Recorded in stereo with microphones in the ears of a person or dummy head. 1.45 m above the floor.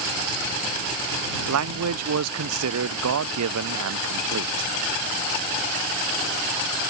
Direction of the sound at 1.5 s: 80° right.